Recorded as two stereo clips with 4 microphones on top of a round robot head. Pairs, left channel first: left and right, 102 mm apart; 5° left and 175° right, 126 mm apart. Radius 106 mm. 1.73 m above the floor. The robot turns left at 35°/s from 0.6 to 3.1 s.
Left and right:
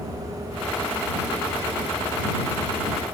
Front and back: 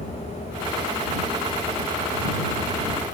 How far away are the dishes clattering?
I don't hear dishes clattering.